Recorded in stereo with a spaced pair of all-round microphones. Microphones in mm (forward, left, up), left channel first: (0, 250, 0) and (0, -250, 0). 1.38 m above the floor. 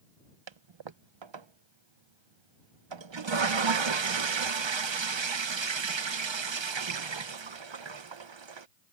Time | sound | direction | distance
0.5 | a toilet flushing | 60° right (ahead or behind) | ?